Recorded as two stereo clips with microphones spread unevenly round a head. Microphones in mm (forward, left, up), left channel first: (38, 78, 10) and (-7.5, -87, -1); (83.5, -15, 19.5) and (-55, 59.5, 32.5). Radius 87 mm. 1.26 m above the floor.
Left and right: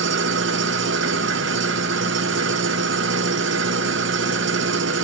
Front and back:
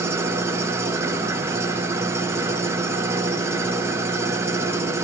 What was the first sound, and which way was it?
An engine running, 135° right.